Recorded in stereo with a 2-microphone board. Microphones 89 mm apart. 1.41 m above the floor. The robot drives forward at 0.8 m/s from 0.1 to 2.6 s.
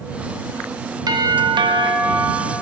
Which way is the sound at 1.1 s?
50° right (ahead or behind).